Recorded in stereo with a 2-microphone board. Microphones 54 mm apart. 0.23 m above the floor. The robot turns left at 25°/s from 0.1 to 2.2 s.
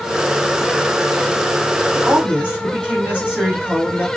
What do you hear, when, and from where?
1.9 s a woman speaking: 25° right (ahead or behind), 1.5 m